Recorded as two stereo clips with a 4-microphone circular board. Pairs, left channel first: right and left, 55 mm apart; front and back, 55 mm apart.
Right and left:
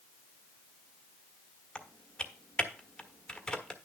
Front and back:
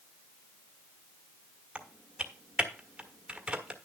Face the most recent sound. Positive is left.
turn(degrees=-140)